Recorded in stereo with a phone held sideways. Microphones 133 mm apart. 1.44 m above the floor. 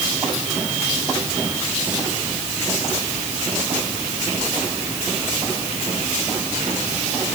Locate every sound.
Only background noise.